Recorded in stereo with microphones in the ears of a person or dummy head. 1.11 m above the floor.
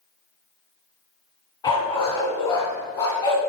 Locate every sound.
1.6 s a dog barking: 20° left (ahead or behind), 3 m